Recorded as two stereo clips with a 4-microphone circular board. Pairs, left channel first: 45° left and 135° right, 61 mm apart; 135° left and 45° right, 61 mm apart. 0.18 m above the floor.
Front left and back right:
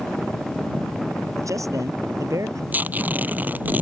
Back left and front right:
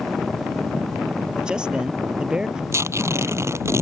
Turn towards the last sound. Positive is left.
turn(degrees=-75)